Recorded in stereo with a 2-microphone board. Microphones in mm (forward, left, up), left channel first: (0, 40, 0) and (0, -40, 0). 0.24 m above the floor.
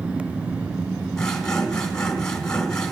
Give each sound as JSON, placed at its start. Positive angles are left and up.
{"t": 1.2, "sound": "sawing", "side_deg": 10, "distance_m": 1.6}